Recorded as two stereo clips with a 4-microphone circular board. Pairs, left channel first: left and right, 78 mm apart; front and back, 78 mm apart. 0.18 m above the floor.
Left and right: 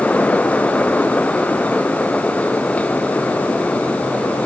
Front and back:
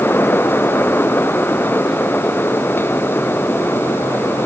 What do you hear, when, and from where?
Only background noise.